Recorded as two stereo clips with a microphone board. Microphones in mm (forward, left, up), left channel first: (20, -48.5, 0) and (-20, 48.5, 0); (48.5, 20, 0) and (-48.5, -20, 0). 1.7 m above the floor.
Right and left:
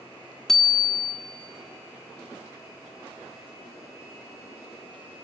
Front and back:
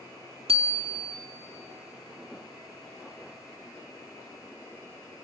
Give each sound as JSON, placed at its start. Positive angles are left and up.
{"t": 0.5, "sound": "a bicycle bell", "azimuth_deg": -155, "distance_m": 2.5}